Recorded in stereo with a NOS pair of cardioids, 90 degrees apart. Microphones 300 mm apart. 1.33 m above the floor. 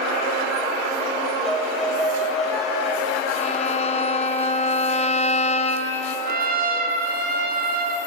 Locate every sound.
1.4 s a violin: straight ahead, 4.5 m
3.4 s a violin: 20° left, 1.4 m
6.3 s a trumpet: 30° right, 2.5 m